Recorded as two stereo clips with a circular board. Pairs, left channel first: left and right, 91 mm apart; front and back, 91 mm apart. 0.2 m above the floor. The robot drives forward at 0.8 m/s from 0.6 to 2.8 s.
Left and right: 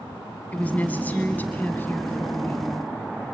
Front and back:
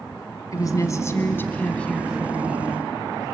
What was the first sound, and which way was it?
A woman speaking, 25° left.